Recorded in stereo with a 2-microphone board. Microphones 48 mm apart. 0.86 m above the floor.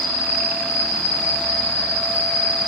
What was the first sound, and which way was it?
An insect, 30° left (ahead or behind).